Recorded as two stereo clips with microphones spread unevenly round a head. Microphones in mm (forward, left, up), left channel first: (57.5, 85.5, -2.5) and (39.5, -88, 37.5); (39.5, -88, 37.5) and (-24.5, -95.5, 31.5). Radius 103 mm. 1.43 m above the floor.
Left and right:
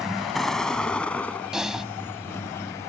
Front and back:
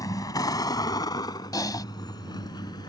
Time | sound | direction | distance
0.0 | a vehicle | 10° right | ?
1.5 | typing on a keyboard | 10° right | ?